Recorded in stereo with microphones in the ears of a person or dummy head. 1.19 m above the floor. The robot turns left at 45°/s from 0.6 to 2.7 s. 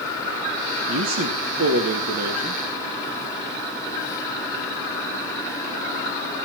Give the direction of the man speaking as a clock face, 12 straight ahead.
2 o'clock.